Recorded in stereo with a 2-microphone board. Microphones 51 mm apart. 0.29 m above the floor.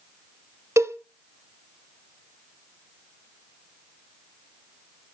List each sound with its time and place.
0.8 s a cowbell: 75° right (ahead or behind), 0.9 m